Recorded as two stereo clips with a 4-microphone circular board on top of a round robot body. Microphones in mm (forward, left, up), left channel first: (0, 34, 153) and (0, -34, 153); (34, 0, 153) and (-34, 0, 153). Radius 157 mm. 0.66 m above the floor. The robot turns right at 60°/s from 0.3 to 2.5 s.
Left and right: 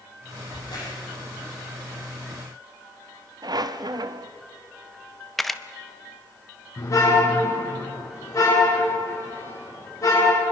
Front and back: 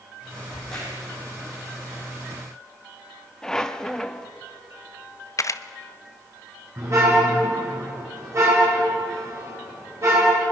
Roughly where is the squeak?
Right.